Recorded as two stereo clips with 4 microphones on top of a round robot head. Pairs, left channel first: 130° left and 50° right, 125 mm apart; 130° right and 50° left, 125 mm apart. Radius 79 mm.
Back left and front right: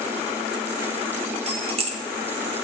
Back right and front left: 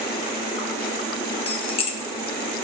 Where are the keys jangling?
90° right, 1.1 m.